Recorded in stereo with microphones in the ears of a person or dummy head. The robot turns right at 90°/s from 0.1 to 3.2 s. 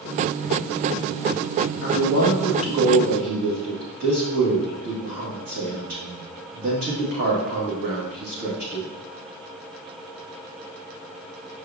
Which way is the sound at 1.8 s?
105° left.